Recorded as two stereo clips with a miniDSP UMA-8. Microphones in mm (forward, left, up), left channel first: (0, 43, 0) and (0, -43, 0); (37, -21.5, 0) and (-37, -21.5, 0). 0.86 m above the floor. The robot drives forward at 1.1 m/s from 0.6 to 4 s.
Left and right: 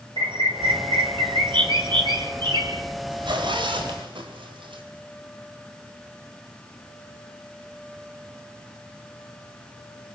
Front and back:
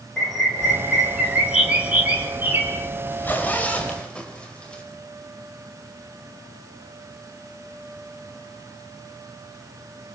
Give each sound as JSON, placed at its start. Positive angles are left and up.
{"t": 0.2, "sound": "a bird", "azimuth_deg": -85, "distance_m": 3.5}
{"t": 3.1, "sound": "a zipper", "azimuth_deg": -65, "distance_m": 4.5}